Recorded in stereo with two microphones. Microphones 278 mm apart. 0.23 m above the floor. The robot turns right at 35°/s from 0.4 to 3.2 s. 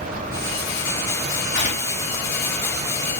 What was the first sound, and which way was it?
Tearing paper, 30° left (ahead or behind).